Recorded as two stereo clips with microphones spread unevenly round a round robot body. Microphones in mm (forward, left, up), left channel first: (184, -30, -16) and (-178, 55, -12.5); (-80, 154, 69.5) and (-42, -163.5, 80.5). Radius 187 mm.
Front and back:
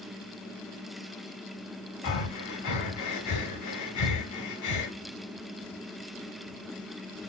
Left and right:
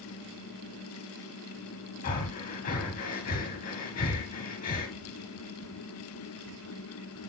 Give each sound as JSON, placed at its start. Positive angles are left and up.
{"t": 2.0, "sound": "breathing", "azimuth_deg": 30, "distance_m": 1.8}